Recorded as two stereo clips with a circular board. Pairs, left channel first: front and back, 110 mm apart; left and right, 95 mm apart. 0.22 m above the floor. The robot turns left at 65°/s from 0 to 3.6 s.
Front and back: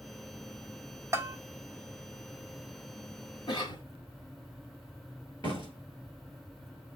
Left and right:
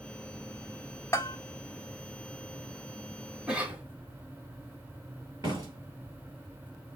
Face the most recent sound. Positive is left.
turn(degrees=-45)